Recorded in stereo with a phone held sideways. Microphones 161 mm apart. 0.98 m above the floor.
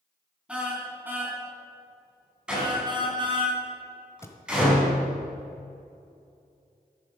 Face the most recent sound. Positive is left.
turn(degrees=15)  # may be behind; listen again after turning